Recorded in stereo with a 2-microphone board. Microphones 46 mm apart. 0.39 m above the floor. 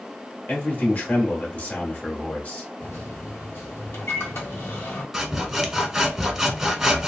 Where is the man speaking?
30° left (ahead or behind), 1.2 m.